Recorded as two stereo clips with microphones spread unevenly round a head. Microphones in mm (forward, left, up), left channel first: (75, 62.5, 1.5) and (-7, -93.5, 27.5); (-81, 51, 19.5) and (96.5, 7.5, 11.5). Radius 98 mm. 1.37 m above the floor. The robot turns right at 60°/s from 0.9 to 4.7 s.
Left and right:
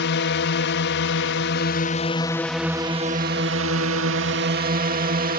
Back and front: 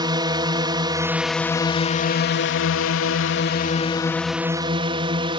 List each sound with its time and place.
0.0 s a drone: 55° left; by 5.4 s 80° right